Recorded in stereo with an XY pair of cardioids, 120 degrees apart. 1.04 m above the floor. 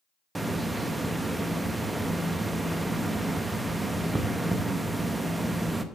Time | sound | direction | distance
0.3 | a hiss | 10° right | 0.9 m